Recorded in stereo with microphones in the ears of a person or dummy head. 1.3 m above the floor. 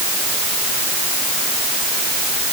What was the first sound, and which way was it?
Only background noise.